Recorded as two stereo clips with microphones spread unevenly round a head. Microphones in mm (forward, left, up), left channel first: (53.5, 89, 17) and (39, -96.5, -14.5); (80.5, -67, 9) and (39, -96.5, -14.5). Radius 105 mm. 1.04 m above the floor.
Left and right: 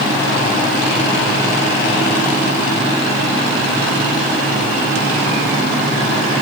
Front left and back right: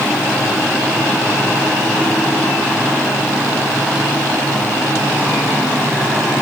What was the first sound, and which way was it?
Only background noise.